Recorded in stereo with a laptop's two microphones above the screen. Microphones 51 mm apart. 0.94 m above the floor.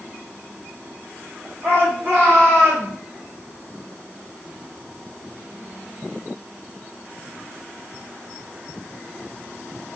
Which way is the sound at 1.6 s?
50° right (ahead or behind).